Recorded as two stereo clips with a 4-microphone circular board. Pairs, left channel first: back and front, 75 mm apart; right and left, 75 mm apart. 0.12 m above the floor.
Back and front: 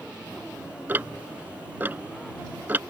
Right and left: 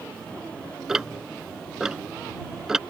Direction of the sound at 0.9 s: 15° left.